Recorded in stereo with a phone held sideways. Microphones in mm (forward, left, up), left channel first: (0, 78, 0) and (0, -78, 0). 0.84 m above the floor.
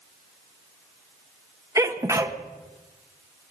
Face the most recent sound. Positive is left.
turn(degrees=-20)  # may be behind; listen again after turning